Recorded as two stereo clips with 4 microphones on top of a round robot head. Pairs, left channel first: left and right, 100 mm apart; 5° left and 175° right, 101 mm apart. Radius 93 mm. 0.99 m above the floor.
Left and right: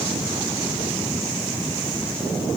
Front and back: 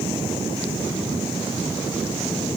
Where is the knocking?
I don't hear knocking.